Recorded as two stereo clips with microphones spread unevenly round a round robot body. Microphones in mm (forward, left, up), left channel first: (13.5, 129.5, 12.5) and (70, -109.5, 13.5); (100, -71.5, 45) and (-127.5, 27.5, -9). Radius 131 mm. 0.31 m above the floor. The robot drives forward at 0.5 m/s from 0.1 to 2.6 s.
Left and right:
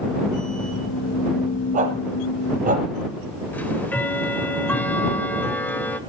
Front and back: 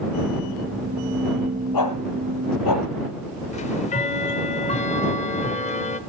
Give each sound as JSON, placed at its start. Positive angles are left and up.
{"t": 1.7, "sound": "a dog barking", "azimuth_deg": -15, "distance_m": 3.5}
{"t": 3.5, "sound": "ticking", "azimuth_deg": 30, "distance_m": 1.3}